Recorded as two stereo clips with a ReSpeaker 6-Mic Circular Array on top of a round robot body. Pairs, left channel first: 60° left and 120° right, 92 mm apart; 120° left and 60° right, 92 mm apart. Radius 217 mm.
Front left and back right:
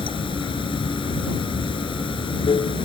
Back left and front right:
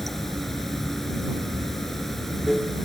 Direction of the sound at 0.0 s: 30° left.